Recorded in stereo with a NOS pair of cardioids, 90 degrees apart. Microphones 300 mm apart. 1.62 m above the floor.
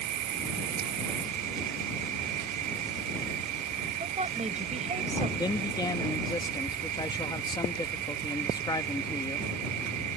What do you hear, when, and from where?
0.0 s an insect: 70° right
4.0 s a woman speaking: 25° right
5.4 s a man speaking: 15° left